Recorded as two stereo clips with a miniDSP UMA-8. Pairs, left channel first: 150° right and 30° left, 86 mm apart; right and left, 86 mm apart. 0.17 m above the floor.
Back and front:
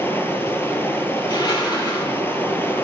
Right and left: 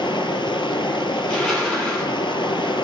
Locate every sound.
0.0 s running water: 90° right, 1.1 m
1.2 s crushing: 170° right, 5 m